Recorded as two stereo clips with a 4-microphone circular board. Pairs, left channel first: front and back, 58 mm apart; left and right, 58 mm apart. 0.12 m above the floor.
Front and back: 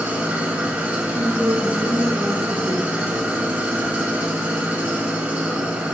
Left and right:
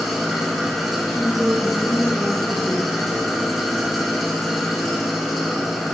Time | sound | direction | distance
0.0 | an engine running | 175° right | 0.7 m
1.1 | a woman speaking | 165° right | 1.3 m